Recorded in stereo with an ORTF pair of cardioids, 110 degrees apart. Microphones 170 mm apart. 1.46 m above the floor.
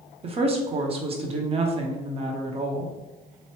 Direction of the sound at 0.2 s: 35° right.